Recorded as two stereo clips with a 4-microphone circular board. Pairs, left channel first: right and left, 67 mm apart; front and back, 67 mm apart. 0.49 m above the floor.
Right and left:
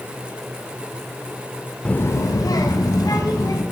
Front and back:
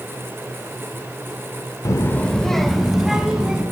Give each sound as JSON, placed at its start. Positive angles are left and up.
{"t": 1.9, "sound": "a child speaking", "azimuth_deg": -15, "distance_m": 0.5}